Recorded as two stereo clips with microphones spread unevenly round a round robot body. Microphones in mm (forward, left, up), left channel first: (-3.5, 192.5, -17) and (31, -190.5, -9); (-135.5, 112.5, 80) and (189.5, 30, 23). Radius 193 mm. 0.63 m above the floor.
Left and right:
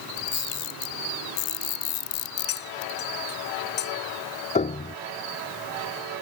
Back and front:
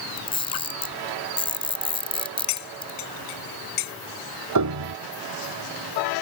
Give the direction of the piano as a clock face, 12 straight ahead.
11 o'clock.